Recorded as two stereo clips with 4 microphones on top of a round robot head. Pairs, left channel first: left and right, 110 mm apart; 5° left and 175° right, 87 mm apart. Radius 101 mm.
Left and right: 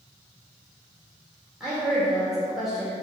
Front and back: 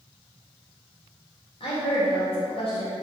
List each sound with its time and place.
1.6 s a woman speaking: 5° right, 2.5 m